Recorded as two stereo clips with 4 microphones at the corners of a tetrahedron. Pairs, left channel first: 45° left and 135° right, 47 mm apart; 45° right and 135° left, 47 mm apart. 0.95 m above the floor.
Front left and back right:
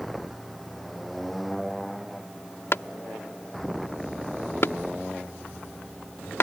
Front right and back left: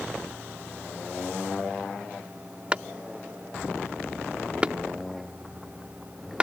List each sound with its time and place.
2.7 s a clap: 70° left